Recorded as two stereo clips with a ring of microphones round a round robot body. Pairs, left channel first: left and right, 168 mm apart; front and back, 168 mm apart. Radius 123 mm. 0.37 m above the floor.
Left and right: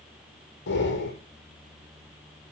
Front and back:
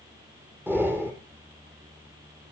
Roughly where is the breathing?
Left.